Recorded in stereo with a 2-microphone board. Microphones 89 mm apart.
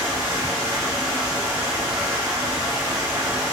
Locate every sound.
0.0 s running water: 45° right (ahead or behind), 1.8 m